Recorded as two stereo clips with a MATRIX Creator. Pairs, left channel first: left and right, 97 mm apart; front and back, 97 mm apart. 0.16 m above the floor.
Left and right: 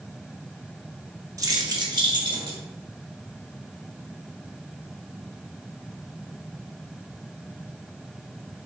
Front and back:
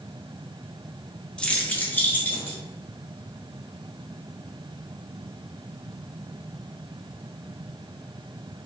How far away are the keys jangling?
About 0.8 m.